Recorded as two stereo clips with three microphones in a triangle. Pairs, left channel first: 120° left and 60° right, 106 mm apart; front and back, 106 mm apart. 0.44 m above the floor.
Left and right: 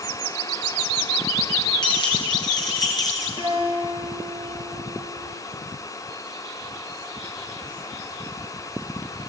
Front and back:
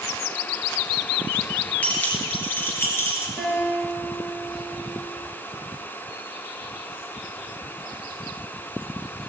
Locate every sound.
1.8 s keys jangling: 75° left, 5 m; by 3.3 s 65° left, 4.5 m
3.4 s a guitar: 80° left, 7 m